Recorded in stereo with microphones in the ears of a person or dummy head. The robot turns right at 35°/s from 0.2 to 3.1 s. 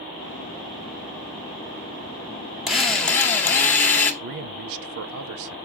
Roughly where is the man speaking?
Right.